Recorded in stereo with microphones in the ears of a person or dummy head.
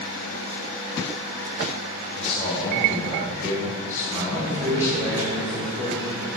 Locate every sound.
2.1 s a man speaking: 5° left (ahead or behind), 5 m; by 5.2 s 20° left (ahead or behind), 4 m
4.2 s a man speaking: 20° right (ahead or behind), 4.5 m